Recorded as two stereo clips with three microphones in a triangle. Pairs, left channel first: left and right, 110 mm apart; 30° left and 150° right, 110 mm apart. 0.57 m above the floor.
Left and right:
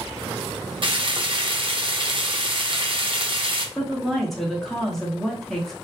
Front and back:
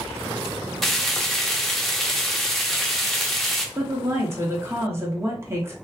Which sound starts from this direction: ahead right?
Frying, at 0.8 s.